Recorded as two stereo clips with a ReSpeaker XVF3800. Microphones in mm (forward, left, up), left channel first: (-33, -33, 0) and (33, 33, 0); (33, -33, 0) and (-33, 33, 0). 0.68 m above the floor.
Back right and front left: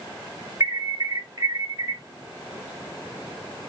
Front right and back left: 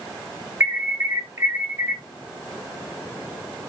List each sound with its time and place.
0.6 s an alarm: 85° left, 1.2 m